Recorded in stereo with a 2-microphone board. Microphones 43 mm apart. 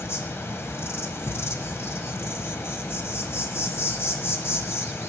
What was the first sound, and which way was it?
An insect, 75° left (ahead or behind).